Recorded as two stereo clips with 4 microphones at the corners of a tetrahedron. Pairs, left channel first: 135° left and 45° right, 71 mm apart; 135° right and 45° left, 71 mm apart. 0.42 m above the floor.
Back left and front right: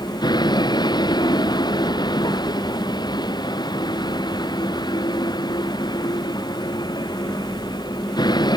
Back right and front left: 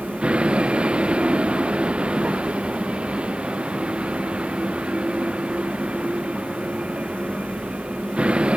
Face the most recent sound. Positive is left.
turn(degrees=120)